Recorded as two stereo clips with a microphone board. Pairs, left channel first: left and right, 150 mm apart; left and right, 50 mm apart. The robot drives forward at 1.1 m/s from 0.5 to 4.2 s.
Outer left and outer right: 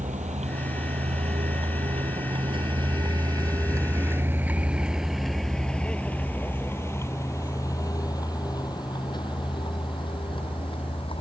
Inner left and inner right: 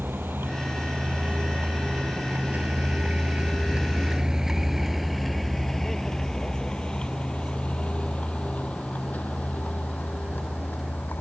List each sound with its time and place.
0.0 s a vehicle: 55° right (ahead or behind); by 11.2 s 35° left (ahead or behind)